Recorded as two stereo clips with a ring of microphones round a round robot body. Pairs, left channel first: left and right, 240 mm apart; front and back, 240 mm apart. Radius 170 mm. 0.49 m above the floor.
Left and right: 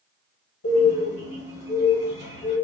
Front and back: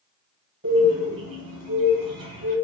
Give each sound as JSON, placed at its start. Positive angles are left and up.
{"t": 0.6, "sound": "a bird", "azimuth_deg": 120, "distance_m": 1.4}